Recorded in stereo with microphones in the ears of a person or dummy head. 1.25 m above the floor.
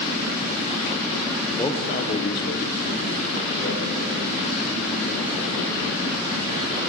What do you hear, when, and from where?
1.6 s a man speaking: 20° left (ahead or behind), 0.6 m; by 6.8 s 50° left (ahead or behind), 3.5 m